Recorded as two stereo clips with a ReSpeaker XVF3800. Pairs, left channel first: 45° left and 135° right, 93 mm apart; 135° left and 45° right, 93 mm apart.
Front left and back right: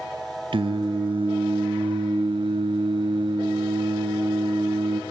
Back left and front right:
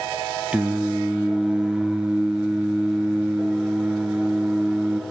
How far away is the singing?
About 0.6 m.